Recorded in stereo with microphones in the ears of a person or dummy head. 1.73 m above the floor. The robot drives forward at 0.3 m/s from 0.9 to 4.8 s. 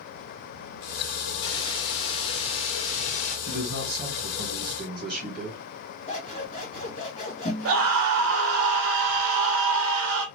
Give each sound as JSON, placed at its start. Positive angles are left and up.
{"t": 1.4, "sound": "a hiss", "side_deg": 25, "distance_m": 1.5}
{"t": 3.5, "sound": "a man speaking", "side_deg": -50, "distance_m": 1.6}
{"t": 6.1, "sound": "scissors", "side_deg": 30, "distance_m": 1.6}
{"t": 7.7, "sound": "a scream", "side_deg": -70, "distance_m": 0.8}